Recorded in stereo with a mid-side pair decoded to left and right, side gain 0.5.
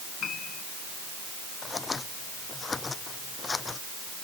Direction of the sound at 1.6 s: 25° left.